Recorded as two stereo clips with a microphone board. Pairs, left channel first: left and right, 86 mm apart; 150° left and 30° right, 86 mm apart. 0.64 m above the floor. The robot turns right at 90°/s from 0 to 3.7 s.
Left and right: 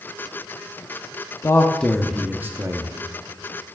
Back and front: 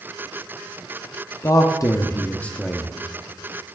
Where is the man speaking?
125° left, 0.7 m; by 2.9 s 105° right, 0.7 m.